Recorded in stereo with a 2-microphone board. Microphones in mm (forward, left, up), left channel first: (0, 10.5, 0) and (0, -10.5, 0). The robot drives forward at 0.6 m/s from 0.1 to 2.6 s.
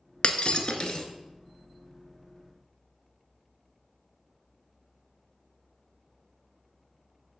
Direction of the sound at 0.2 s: 60° left (ahead or behind).